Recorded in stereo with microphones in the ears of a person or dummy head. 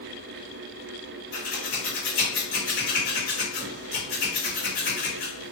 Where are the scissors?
65° left (ahead or behind), 1.6 m.